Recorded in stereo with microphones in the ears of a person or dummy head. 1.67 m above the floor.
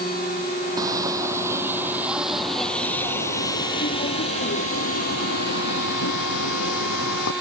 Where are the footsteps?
20° right (ahead or behind); by 7.3 s 70° left (ahead or behind).